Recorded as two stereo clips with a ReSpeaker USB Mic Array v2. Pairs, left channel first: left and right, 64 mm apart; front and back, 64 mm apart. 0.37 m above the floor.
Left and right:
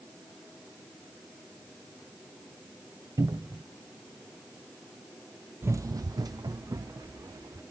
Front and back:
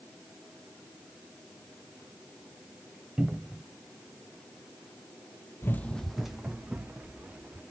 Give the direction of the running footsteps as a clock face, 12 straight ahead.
1 o'clock.